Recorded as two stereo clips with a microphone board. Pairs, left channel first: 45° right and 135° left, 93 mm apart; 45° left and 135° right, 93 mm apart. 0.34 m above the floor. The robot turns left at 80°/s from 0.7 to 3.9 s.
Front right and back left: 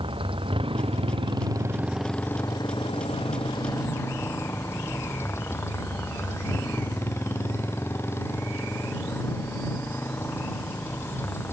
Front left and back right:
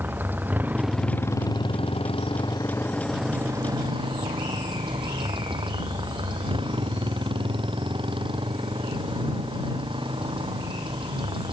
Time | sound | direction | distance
0.0 | a motorcycle | 155° left | ?